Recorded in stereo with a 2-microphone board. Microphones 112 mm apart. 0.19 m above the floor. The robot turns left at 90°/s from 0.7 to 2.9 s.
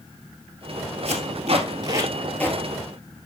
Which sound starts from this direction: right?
Tape being pulled, at 1.1 s.